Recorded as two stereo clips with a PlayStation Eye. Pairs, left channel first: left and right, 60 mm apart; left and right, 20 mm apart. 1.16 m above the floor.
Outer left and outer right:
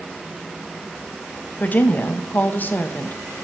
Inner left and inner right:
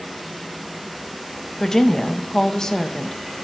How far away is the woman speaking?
About 0.7 m.